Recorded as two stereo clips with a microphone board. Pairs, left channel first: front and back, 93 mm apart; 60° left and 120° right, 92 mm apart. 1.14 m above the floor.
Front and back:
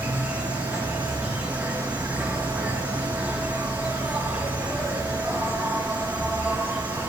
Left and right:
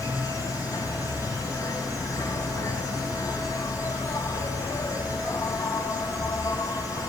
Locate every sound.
0.0 s an insect: 110° left, 2.5 m